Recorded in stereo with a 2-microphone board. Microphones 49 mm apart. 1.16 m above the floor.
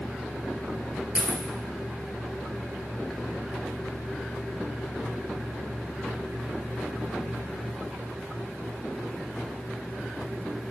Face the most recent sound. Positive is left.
turn(degrees=-30)  # may be behind; listen again after turning